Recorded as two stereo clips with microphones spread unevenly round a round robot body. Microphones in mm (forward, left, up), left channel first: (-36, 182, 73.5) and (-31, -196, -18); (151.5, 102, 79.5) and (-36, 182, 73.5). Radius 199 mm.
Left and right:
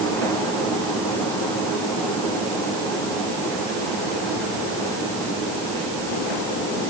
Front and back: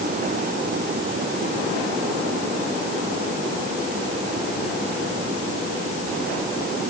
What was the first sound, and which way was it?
Only background noise.